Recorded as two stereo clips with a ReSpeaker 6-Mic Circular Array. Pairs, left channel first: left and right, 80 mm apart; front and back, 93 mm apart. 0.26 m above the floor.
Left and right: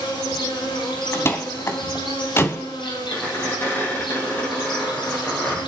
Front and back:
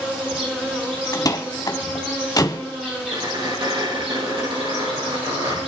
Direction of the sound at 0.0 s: 100° left.